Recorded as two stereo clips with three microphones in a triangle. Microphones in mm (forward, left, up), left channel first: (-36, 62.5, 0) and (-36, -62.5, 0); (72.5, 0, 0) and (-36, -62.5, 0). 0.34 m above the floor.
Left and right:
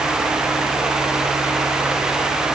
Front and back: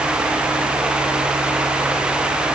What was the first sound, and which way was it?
Only background noise.